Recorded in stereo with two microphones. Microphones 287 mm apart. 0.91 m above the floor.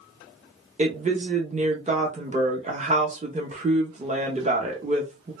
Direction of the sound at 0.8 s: 25° right (ahead or behind).